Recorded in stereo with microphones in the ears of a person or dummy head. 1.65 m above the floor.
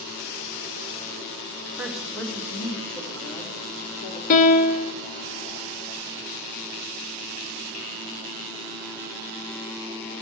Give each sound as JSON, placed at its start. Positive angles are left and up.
{"t": 1.8, "sound": "a woman speaking", "side_deg": -5, "distance_m": 1.5}
{"t": 4.3, "sound": "a piano", "side_deg": 45, "distance_m": 0.8}